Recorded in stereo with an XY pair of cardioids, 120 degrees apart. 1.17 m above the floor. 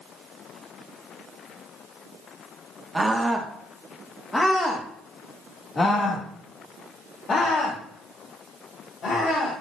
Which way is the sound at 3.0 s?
15° right.